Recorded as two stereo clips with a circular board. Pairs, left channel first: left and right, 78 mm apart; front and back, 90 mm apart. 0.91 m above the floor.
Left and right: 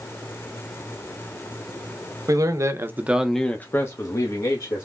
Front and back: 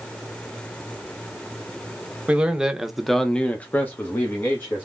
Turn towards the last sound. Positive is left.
turn(degrees=65)